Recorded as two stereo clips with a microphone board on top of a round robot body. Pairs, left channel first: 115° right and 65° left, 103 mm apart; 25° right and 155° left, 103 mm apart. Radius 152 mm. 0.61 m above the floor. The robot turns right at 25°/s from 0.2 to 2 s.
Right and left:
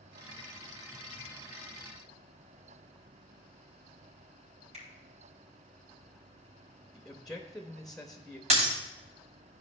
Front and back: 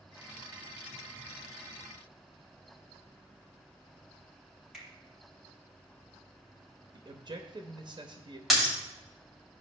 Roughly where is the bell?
No bell in this recording.